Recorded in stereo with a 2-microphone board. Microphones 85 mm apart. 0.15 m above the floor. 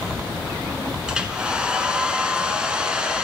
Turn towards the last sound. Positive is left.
turn(degrees=-10)  # may be behind; listen again after turning